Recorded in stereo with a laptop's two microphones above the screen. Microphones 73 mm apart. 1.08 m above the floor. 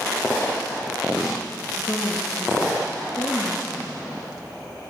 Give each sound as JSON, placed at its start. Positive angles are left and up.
{"t": 1.8, "sound": "a woman speaking", "side_deg": 40, "distance_m": 1.1}